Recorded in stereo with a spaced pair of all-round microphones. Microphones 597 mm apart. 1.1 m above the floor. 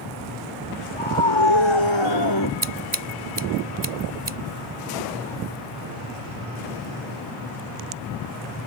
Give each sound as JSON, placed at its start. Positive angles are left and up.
{"t": 0.9, "sound": "a scream", "side_deg": 55}
{"t": 2.6, "sound": "scissors", "side_deg": -50}